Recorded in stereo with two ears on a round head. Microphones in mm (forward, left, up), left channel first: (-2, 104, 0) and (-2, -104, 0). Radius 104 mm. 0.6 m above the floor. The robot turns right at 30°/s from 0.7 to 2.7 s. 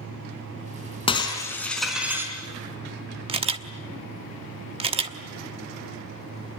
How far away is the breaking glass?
About 4.5 m.